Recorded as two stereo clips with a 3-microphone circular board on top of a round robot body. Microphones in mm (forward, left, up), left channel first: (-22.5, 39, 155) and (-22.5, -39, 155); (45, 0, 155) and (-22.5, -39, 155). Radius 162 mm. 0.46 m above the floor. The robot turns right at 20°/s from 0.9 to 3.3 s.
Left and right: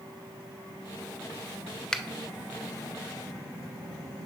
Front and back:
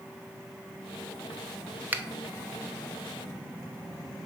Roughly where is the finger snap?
Behind.